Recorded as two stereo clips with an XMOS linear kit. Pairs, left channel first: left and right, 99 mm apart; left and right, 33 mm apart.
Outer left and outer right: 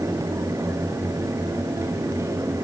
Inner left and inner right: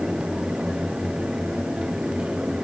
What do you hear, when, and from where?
Only background noise.